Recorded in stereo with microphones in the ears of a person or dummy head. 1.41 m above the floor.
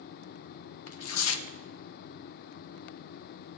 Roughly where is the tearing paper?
Left.